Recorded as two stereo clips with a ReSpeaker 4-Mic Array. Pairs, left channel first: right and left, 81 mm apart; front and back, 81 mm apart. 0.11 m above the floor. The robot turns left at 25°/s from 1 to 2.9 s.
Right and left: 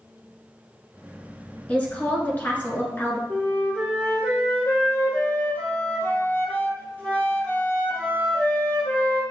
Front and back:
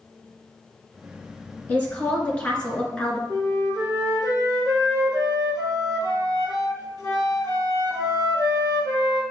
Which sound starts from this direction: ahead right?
A woman speaking, at 1.7 s.